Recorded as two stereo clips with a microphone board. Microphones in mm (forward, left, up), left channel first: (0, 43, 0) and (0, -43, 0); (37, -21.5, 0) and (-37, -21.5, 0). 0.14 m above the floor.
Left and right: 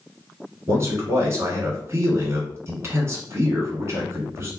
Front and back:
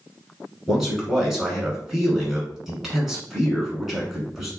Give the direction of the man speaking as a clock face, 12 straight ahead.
3 o'clock.